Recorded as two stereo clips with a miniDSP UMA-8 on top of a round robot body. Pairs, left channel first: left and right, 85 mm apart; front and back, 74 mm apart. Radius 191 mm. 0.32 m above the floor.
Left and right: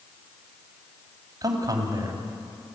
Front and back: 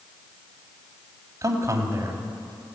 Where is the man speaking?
135° right, 2.5 m.